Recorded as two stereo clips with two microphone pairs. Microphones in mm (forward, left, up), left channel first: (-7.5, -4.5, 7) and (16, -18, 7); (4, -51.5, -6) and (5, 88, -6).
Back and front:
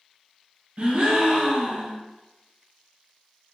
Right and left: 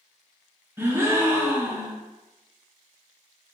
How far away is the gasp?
About 0.7 m.